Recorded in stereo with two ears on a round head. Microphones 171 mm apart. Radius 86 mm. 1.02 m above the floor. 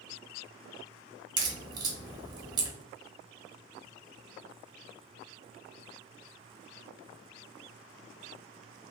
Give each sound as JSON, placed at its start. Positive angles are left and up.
{"t": 1.4, "sound": "a crack", "side_deg": -20, "distance_m": 0.7}